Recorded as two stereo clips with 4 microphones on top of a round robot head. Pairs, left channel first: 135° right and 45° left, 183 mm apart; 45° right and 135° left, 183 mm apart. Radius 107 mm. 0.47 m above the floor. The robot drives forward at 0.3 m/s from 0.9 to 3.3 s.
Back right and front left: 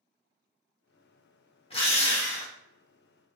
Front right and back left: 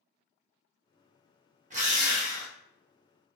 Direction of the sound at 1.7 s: 175° left.